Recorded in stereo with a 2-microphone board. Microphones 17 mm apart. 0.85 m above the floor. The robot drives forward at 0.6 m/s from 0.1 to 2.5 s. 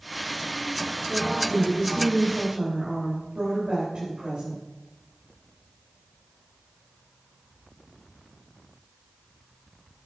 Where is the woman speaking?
50° right (ahead or behind), 4 m; by 4.6 s 45° right (ahead or behind), 4.5 m.